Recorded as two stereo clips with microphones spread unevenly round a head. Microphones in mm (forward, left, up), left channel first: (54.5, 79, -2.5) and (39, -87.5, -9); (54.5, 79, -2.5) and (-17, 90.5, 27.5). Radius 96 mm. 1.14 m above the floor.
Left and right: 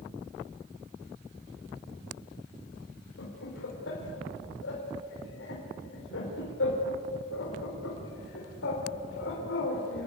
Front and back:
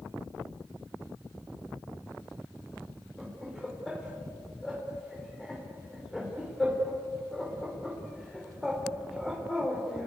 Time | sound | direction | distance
3.2 | laughter | 80° left | 4 m